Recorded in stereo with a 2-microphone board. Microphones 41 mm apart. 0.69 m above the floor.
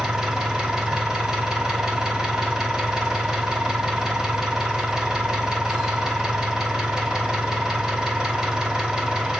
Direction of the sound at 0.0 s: 15° right (ahead or behind).